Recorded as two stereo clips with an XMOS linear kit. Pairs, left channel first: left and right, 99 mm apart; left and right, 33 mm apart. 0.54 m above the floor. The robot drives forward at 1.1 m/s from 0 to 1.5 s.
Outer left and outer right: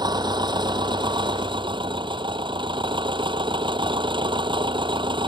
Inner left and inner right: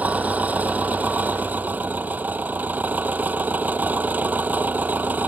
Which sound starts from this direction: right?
An engine running, at 0.0 s.